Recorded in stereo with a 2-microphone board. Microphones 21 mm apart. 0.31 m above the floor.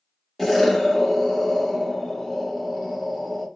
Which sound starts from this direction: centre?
An explosion, at 0.4 s.